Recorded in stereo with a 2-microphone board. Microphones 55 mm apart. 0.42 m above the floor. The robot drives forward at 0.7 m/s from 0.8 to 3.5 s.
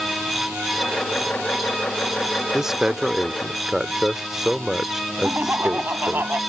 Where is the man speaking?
10° right (ahead or behind); by 6.2 s 5° right (ahead or behind).